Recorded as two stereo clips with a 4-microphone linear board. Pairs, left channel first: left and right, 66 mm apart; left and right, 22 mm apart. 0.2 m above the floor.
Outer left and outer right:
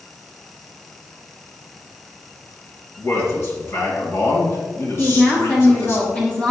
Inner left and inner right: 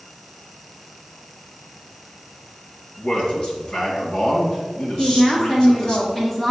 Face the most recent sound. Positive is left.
turn(degrees=20)  # may be behind; listen again after turning